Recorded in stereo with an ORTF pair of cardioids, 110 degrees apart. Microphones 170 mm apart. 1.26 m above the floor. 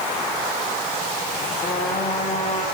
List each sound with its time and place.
1.6 s a trumpet: 40° left, 7.5 m